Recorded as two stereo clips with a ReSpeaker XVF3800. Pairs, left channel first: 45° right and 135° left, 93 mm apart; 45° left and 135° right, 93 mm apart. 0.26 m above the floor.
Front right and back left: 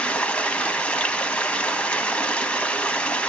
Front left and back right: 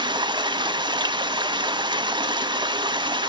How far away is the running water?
About 0.9 m.